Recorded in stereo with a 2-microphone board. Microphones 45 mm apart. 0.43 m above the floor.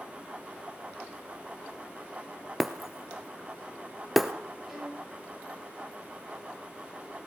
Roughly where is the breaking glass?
Centre.